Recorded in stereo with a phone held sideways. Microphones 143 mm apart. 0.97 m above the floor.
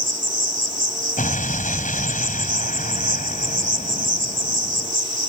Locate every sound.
0.0 s an insect: 75° right (ahead or behind)
1.2 s an explosion: 75° left (ahead or behind)